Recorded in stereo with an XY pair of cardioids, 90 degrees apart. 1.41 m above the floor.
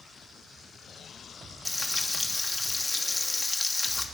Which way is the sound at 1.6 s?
15° left.